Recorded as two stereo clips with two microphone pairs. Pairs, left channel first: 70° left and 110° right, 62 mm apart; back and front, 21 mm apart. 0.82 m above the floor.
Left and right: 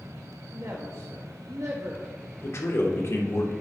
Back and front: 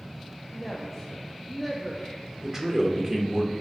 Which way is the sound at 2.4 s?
55° left.